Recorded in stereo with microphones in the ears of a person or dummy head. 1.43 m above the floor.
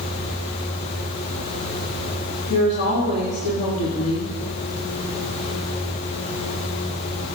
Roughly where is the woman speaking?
Left.